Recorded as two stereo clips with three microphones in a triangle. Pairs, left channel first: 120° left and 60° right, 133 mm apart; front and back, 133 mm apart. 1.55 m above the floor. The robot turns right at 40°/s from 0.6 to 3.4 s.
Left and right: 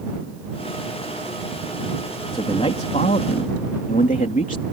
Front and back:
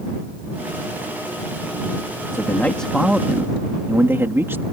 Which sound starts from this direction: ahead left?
A man speaking, at 2.3 s.